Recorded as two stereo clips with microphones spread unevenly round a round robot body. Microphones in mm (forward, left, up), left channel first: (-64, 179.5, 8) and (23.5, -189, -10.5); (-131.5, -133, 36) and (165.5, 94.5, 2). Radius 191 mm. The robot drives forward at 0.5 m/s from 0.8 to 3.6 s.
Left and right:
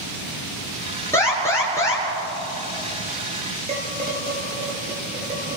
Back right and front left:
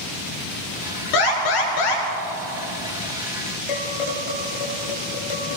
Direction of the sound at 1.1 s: 175° right.